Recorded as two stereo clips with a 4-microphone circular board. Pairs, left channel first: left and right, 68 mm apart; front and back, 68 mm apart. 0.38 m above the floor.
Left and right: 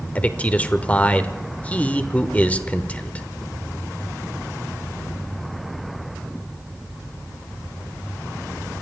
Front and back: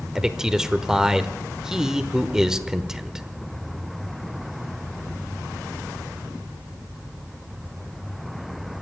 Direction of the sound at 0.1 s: 110° left.